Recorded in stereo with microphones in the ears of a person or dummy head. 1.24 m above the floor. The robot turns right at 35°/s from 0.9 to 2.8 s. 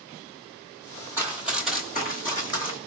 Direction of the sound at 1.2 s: 15° right (ahead or behind).